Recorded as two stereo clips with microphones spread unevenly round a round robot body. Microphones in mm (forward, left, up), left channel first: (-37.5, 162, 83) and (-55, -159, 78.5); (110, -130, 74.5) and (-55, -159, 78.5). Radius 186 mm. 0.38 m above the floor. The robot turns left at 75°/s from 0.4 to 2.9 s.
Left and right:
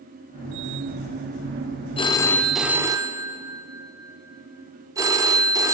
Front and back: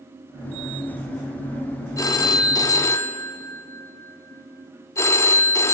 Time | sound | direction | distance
2.0 | a phone ringing | 40° left | 0.5 m